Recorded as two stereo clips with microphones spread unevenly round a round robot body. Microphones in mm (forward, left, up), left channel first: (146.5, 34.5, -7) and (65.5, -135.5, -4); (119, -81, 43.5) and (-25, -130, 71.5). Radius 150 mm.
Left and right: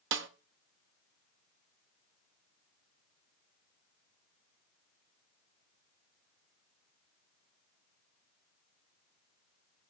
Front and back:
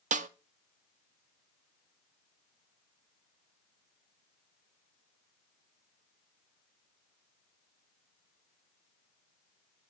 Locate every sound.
0.1 s a snare drum: 130° right, 0.6 m